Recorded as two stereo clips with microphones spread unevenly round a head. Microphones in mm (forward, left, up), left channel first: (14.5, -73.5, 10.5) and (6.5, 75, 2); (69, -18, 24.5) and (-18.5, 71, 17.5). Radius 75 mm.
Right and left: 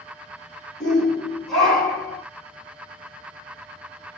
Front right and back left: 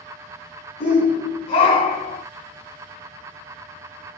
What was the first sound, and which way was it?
A shout, straight ahead.